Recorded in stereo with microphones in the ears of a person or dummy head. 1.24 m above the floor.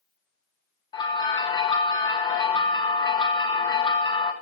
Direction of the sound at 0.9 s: 20° left (ahead or behind).